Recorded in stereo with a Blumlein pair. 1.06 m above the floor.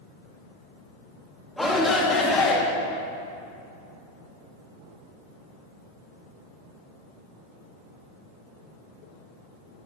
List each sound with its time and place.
1.6 s a shout: straight ahead, 2.5 m; by 2.6 s 30° left, 2.0 m